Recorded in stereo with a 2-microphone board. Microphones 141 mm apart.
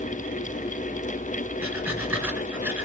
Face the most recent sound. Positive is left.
turn(degrees=-15)  # may be behind; listen again after turning